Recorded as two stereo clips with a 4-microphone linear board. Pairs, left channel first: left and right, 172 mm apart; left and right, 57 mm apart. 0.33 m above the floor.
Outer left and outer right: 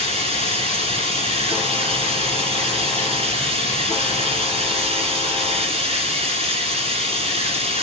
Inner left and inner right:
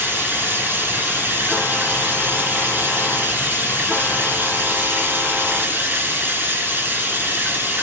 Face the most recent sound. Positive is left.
turn(degrees=-35)  # may be behind; listen again after turning